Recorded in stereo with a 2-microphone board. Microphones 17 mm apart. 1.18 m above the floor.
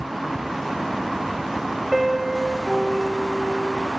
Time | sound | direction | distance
1.9 | a piano | 10° right (ahead or behind) | 1.7 m